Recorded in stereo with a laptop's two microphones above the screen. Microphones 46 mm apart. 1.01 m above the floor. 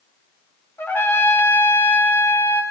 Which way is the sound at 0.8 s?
60° left (ahead or behind).